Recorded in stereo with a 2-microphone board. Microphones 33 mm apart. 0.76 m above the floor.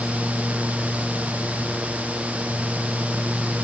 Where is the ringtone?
I don't hear a ringtone.